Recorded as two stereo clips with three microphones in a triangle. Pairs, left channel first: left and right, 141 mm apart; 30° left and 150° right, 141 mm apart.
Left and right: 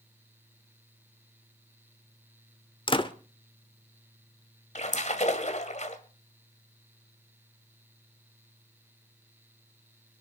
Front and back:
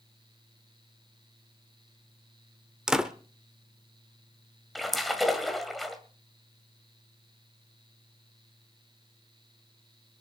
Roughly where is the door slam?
Behind left.